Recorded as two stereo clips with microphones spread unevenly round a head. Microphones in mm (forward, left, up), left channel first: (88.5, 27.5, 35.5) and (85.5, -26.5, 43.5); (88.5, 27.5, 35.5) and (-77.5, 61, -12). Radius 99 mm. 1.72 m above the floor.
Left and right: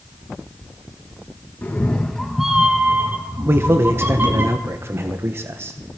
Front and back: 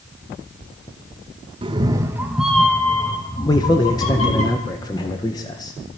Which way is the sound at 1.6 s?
120° left.